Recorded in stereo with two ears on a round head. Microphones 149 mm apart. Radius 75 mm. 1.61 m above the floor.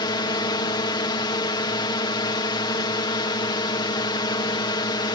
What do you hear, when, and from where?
0.0 s a drone: 25° left (ahead or behind)